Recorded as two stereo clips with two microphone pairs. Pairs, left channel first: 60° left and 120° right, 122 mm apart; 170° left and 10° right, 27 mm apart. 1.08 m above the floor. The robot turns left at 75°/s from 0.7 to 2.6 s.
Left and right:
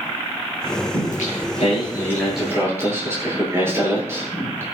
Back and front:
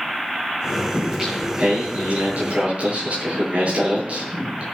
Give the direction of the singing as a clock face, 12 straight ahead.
9 o'clock.